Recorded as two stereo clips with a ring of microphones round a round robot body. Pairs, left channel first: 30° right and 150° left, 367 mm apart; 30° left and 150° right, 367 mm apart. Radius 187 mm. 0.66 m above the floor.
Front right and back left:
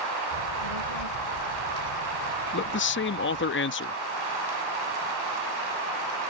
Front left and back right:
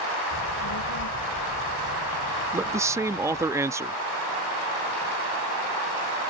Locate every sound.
0.3 s a child speaking: 20° right; by 3.5 s 10° right
2.5 s a man speaking: 70° right